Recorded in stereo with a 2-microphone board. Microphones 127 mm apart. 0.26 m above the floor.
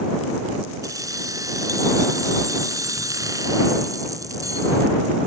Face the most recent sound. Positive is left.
turn(degrees=-30)  # may be behind; listen again after turning